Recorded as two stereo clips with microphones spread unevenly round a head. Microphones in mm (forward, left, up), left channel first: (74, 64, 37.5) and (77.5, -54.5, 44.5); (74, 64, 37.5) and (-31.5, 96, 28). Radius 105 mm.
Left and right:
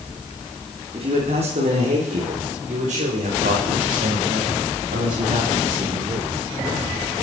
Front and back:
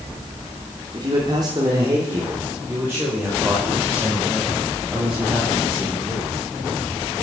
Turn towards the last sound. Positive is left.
turn(degrees=-110)